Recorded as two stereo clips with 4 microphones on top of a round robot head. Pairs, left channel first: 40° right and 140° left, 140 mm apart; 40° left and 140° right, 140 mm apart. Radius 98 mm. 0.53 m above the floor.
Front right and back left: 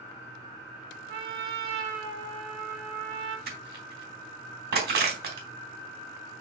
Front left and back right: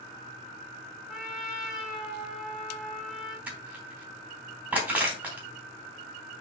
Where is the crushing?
140° left, 3.5 m.